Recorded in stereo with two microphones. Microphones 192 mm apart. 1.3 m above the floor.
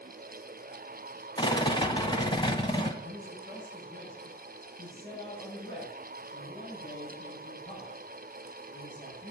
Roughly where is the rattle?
Left.